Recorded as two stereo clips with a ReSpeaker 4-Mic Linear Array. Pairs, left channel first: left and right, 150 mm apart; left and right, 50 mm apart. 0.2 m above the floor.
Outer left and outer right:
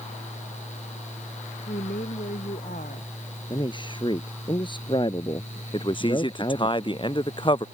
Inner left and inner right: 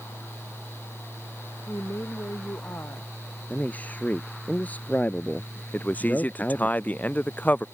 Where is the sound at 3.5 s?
30° left (ahead or behind).